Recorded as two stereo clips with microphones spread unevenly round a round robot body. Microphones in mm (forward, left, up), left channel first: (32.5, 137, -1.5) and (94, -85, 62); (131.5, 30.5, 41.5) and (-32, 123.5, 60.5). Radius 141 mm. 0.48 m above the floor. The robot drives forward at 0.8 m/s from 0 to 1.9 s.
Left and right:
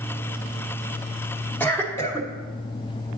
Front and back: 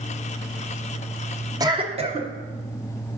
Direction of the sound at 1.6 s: 90° left.